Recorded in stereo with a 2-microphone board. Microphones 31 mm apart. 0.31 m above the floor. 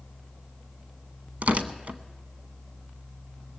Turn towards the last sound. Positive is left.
turn(degrees=-55)  # may be behind; listen again after turning